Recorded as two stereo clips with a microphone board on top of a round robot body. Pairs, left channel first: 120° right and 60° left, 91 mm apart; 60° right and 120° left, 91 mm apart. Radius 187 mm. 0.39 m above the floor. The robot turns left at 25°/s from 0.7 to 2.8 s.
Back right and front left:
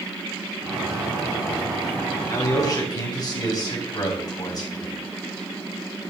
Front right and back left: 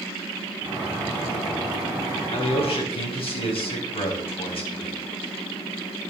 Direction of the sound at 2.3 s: 60° right.